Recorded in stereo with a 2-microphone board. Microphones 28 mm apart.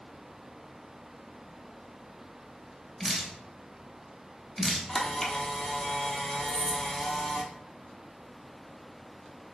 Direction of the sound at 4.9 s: 15° left (ahead or behind).